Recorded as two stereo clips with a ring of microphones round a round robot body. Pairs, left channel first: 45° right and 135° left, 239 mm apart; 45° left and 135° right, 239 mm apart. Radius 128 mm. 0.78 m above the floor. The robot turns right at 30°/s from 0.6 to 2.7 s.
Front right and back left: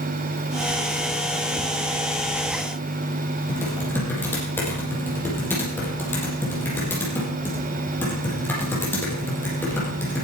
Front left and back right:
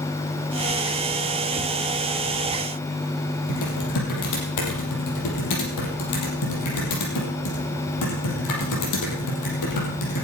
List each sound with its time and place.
3.5 s typing on a keyboard: 35° left, 5.5 m